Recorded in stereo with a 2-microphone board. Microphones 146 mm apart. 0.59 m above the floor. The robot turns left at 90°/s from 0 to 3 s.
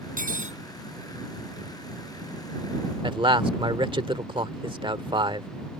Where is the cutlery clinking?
90° right; by 0.6 s 130° right.